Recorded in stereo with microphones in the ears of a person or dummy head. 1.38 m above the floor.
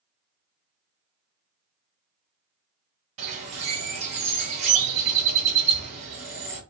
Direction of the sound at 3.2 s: 45° right (ahead or behind).